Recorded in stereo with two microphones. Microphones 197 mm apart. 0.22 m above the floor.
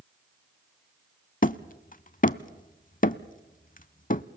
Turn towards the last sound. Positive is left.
turn(degrees=45)  # may be behind; listen again after turning